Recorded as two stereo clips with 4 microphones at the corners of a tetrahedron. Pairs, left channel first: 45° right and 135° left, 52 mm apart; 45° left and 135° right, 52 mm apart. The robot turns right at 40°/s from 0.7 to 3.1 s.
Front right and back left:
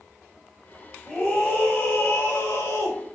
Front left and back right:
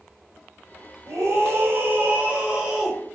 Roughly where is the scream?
Right.